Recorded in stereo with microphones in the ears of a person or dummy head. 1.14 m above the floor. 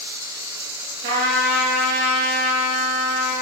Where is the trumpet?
65° right (ahead or behind), 8 m.